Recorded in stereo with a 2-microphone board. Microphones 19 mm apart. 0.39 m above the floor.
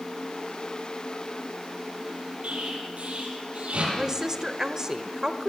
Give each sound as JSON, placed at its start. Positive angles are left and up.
{"t": 2.4, "sound": "an explosion", "side_deg": -80, "distance_m": 8.5}
{"t": 3.9, "sound": "a woman speaking", "side_deg": -30, "distance_m": 1.1}